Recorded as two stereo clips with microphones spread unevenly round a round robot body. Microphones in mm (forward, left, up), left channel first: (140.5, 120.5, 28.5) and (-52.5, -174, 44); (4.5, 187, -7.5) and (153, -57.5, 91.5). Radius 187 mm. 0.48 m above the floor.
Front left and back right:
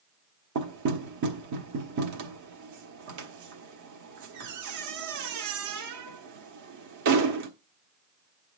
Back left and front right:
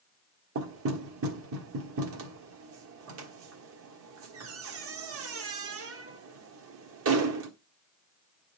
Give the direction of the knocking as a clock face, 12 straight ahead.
4 o'clock.